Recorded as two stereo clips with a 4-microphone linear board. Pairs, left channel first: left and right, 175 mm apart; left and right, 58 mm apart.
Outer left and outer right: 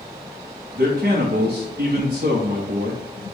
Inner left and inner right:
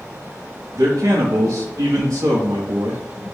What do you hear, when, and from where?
0.8 s a man speaking: 75° right (ahead or behind), 0.9 m